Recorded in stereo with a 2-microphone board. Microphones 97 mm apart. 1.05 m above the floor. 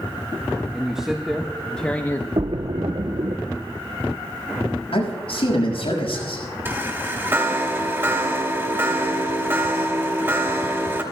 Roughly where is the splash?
Right.